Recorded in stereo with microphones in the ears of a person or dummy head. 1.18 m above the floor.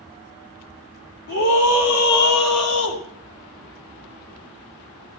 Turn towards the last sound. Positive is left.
turn(degrees=75)  # may be behind; listen again after turning